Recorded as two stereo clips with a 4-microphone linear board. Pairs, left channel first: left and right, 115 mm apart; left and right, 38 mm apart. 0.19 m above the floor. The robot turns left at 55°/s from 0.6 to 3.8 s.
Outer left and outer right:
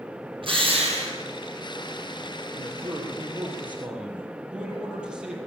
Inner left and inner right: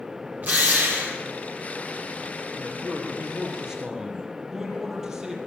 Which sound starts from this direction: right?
A man speaking, at 2.5 s.